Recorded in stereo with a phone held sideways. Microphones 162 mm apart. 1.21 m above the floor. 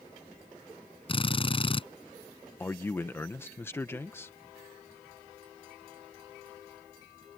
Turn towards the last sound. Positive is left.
turn(degrees=15)  # may be behind; listen again after turning